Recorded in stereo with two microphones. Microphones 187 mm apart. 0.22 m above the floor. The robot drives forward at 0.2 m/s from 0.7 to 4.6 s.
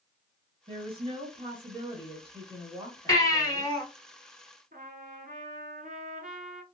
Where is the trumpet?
55° right (ahead or behind), 0.8 m.